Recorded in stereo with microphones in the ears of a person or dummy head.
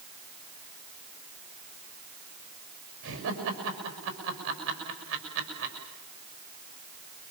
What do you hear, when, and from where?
3.0 s laughter: 70° right (ahead or behind), 6.5 m